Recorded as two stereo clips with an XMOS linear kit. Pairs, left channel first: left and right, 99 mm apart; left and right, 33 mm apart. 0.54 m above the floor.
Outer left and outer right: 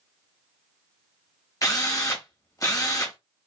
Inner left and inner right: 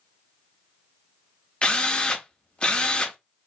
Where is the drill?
35° left (ahead or behind), 0.9 m.